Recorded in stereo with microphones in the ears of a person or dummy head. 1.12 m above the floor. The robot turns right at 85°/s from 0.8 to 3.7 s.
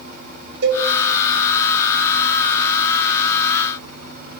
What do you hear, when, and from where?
0.6 s a cowbell: 55° right (ahead or behind), 1.9 m; by 0.9 s 60° right (ahead or behind), 1.9 m